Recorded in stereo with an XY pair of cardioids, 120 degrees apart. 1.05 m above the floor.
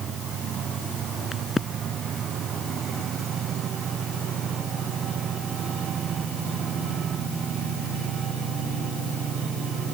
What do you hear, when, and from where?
1.3 s a crack: 25° left